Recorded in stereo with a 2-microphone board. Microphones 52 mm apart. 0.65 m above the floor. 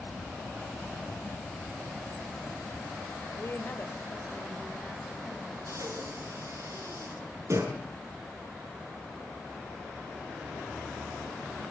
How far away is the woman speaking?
About 2.5 m.